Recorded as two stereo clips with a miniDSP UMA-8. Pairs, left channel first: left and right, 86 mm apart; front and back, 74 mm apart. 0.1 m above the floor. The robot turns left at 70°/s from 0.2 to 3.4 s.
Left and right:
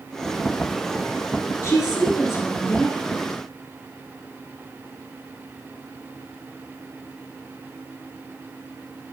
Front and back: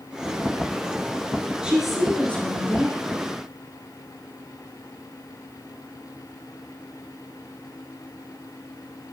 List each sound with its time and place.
1.6 s a woman speaking: 110° left, 1.5 m; by 3.0 s 15° left, 1.5 m